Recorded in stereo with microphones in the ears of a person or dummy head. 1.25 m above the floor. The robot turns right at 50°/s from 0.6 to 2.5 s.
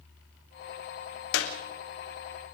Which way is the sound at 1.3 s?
60° left (ahead or behind).